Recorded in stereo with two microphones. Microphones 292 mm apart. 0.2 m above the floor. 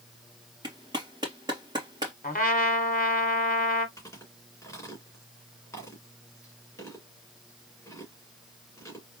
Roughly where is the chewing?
Centre.